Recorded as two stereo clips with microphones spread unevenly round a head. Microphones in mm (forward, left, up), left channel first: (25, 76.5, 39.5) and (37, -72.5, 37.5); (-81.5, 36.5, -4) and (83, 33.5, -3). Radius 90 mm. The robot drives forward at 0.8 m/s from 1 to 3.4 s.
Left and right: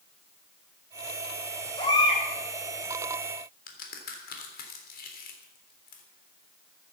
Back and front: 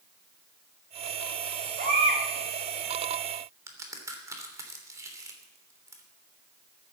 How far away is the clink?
I don't hear a clink.